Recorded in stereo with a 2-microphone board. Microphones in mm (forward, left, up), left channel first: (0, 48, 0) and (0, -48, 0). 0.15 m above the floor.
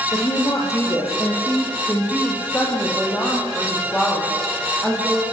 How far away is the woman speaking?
About 4.5 m.